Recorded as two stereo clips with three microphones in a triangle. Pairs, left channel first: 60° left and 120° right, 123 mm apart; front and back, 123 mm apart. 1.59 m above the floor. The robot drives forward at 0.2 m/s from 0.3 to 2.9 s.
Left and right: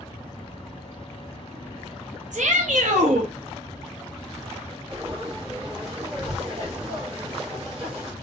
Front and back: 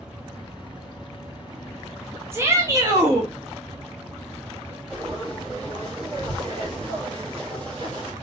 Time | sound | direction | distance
2.3 | a shout | 110° right | 0.7 m
4.9 | frying | 140° right | 1.6 m